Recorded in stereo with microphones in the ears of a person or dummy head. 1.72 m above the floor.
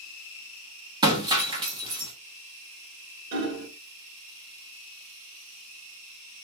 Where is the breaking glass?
20° right (ahead or behind), 1.7 m.